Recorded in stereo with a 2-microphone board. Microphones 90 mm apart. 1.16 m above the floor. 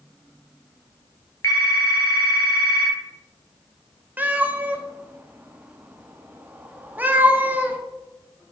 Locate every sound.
1.4 s a phone ringing: 35° left (ahead or behind), 1.4 m
4.2 s a cat meowing: 20° right (ahead or behind), 0.7 m